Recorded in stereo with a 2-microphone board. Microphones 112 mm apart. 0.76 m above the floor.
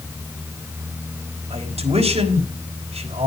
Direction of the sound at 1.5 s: 80° right.